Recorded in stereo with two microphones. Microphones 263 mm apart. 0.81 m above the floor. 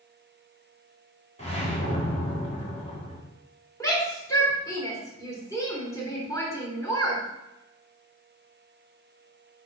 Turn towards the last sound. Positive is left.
turn(degrees=10)  # may be behind; listen again after turning